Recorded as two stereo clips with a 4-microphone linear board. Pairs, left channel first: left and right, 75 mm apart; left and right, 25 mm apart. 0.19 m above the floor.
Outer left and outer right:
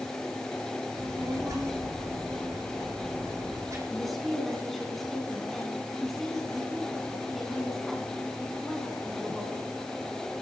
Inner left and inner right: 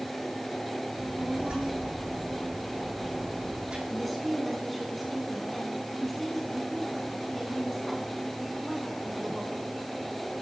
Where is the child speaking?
45° right (ahead or behind), 8 m.